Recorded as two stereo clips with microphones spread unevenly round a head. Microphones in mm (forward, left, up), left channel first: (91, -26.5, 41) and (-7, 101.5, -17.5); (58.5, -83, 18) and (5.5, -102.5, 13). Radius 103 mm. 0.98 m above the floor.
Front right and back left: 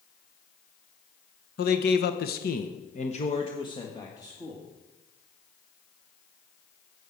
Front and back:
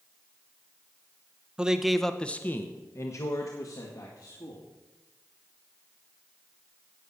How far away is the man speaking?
About 1.1 m.